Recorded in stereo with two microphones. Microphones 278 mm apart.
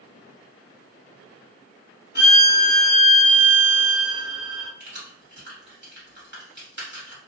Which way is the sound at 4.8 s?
40° right (ahead or behind).